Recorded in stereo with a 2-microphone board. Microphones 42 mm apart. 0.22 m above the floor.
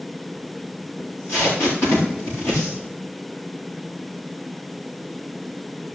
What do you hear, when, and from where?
1.0 s tape being pulled: 60° left (ahead or behind), 8 m